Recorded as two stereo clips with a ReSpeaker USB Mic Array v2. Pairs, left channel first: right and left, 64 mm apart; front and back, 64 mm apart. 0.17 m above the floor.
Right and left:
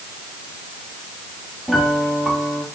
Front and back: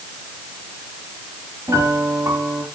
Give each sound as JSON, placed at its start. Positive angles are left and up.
{"t": 1.7, "sound": "a piano", "azimuth_deg": -175, "distance_m": 4.5}